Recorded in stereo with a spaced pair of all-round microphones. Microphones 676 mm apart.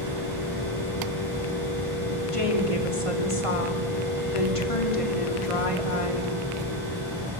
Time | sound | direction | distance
0.0 | a machine running | 30° right (ahead or behind) | 9 m
2.3 | a woman speaking | 50° left (ahead or behind) | 3.5 m